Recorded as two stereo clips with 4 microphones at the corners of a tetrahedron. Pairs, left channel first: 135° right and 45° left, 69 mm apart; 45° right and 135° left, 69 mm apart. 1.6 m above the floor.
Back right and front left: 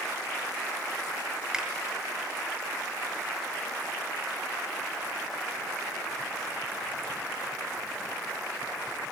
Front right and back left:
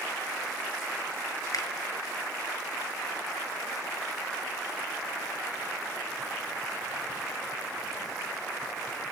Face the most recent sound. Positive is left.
turn(degrees=-30)